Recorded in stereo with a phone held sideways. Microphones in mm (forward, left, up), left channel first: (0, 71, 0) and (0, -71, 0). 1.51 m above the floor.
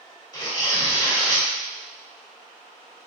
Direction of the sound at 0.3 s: 25° left (ahead or behind).